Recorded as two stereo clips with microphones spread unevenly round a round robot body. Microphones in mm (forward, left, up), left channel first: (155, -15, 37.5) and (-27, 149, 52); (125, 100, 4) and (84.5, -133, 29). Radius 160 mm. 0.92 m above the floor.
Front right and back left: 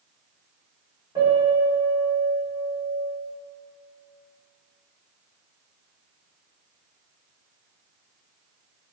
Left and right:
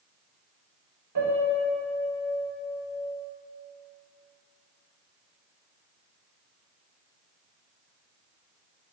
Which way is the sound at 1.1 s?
145° right.